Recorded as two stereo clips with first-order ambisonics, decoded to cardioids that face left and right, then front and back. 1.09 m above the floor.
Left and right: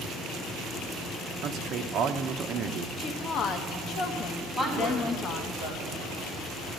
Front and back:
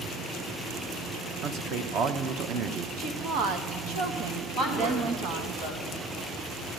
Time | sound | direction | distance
1.4 | a man speaking | 140° right | 0.8 m
3.0 | a woman speaking | 145° left | 1.0 m
4.6 | a woman speaking | 175° left | 3 m